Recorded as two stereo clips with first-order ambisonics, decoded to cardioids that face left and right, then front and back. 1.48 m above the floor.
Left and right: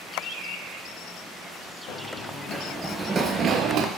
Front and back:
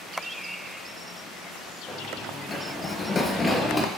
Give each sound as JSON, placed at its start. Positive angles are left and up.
{"t": 1.9, "sound": "running footsteps", "azimuth_deg": 75, "distance_m": 2.0}